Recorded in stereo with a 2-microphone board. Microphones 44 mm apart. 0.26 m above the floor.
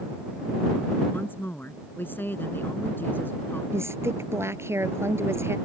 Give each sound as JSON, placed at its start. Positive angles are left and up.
{"t": 1.1, "sound": "a woman speaking", "side_deg": 50}
{"t": 3.7, "sound": "a woman speaking", "side_deg": -75}